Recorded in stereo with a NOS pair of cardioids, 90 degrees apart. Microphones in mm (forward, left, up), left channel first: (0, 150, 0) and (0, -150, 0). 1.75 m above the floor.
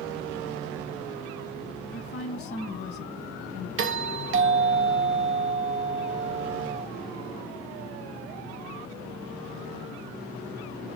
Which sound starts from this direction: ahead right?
A doorbell, at 3.8 s.